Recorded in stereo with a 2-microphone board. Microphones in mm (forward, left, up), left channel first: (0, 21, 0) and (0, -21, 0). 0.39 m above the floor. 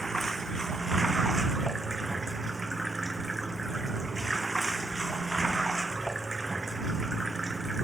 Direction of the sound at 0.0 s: 5° left (ahead or behind).